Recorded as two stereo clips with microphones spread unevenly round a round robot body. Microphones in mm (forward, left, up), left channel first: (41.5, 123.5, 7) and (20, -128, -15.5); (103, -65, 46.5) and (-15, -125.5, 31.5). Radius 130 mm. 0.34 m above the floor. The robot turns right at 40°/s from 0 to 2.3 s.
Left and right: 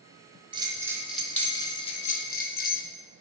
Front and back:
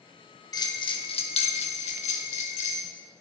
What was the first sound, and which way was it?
A bell, 35° right.